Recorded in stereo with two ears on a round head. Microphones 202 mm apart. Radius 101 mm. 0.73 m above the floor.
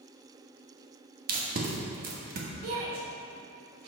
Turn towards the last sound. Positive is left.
turn(degrees=-60)  # may be behind; listen again after turning